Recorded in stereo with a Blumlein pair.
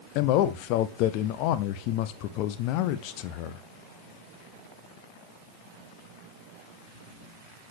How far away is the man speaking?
About 0.7 m.